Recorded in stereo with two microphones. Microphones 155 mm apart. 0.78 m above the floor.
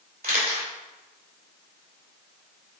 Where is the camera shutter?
80° right, 2.5 m.